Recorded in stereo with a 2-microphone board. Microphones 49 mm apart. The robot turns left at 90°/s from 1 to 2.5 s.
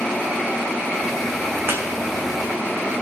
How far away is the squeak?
About 1.7 m.